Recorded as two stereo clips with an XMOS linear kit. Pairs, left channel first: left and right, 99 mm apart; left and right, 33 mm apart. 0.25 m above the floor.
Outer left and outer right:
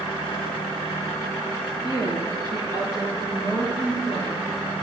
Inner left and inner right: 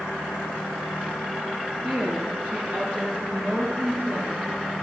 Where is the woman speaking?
45° right (ahead or behind), 5 m.